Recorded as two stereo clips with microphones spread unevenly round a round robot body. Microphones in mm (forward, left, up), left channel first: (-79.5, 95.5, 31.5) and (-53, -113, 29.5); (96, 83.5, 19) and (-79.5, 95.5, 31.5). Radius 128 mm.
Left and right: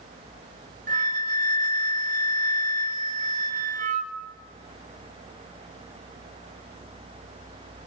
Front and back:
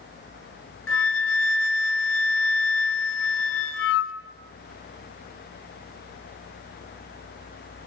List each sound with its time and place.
0.9 s a flute: 20° right, 1.1 m